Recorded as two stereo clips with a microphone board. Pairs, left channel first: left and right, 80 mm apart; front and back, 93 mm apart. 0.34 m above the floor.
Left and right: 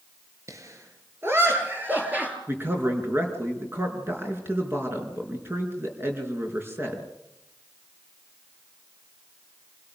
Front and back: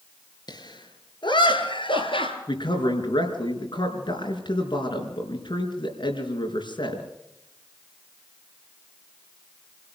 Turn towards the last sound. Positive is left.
turn(degrees=-30)